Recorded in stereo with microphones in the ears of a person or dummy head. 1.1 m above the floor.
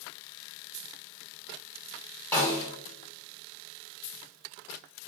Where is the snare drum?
15° left (ahead or behind), 1.2 m.